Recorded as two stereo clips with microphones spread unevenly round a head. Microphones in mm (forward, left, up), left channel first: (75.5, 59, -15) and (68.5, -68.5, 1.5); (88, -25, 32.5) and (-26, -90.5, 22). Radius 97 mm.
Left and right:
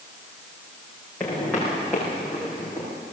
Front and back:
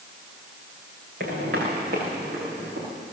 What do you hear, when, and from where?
1.2 s footsteps: 170° left, 5.5 m; by 2.9 s 175° right, 6.5 m